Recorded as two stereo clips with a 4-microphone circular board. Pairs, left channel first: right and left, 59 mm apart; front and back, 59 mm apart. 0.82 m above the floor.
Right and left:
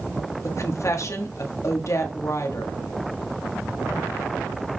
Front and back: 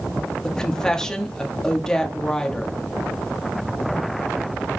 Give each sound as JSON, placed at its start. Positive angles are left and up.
{"t": 0.4, "sound": "a woman speaking", "azimuth_deg": -80, "distance_m": 1.4}